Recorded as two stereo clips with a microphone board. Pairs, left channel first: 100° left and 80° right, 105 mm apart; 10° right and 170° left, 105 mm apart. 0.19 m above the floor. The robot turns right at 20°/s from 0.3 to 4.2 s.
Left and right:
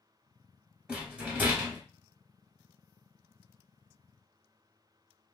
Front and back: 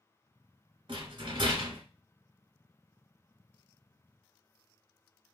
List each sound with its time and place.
0.9 s a rattle: 160° right, 1.2 m; by 1.8 s 140° right, 1.2 m